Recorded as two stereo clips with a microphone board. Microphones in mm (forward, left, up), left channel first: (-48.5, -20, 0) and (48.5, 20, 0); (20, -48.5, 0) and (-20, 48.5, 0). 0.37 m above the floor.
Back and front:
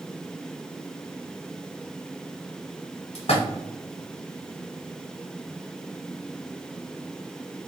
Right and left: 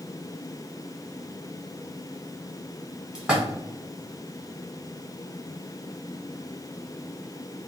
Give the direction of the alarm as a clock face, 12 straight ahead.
I don't hear an alarm.